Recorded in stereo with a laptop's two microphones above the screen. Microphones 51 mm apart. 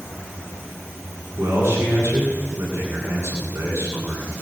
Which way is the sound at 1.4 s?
60° right (ahead or behind).